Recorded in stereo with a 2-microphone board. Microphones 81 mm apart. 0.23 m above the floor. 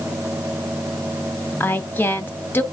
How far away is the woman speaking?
About 1.1 m.